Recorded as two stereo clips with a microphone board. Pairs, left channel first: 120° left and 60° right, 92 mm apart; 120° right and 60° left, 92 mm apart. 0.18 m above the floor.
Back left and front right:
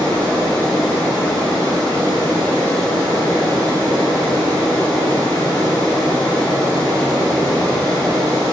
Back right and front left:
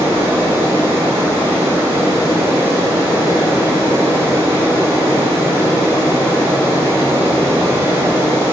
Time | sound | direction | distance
0.0 | running water | 5° right | 3.5 m